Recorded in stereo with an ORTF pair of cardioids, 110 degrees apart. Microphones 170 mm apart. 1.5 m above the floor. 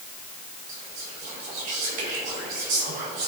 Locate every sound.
0.7 s whispering: 65° right, 4.5 m